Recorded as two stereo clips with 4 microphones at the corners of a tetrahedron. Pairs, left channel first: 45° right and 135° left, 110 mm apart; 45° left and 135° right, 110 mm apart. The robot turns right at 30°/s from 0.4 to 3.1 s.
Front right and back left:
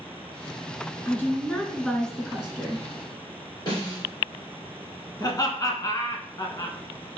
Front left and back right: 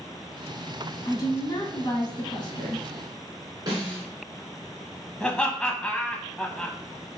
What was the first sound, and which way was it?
A woman speaking, 10° left.